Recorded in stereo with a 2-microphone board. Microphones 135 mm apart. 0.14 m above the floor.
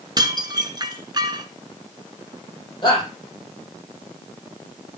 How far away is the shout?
About 6.5 m.